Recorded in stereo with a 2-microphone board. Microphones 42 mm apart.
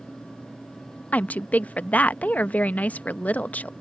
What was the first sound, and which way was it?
A woman speaking, 40° left (ahead or behind).